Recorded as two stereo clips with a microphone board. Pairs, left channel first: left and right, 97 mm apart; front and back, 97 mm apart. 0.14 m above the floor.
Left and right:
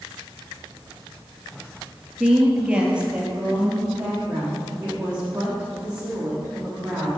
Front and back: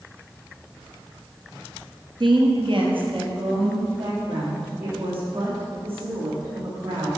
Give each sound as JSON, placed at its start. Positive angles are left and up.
{"t": 2.2, "sound": "a woman speaking", "azimuth_deg": -165, "distance_m": 1.9}